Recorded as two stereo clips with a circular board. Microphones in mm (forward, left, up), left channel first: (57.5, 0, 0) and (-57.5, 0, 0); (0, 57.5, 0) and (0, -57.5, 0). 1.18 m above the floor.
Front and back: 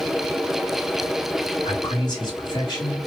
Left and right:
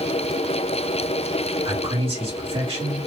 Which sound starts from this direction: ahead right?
A man speaking, at 1.6 s.